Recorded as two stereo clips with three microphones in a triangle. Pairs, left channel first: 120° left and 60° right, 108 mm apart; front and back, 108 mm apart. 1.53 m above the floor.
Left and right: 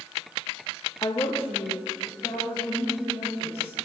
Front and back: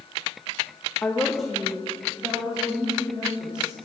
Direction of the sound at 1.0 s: 70° left.